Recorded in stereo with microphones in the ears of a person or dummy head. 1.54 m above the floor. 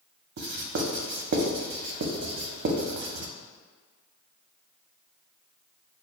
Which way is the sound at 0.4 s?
55° right (ahead or behind).